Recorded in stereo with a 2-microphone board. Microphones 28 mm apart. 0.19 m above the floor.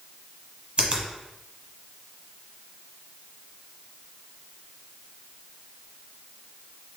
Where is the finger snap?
40° right (ahead or behind), 1.1 m.